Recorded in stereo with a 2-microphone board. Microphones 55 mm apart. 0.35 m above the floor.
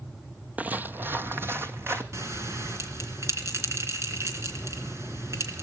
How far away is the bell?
About 3.5 m.